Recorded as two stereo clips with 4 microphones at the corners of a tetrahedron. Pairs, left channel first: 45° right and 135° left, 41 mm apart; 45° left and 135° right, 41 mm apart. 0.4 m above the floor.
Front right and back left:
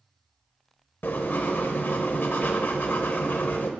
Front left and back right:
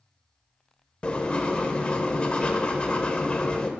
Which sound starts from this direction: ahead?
Writing, at 1.0 s.